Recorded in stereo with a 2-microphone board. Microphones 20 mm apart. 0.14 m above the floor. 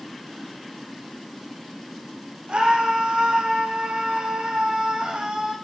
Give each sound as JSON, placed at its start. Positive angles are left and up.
{"t": 2.5, "sound": "a scream", "side_deg": -60, "distance_m": 7.0}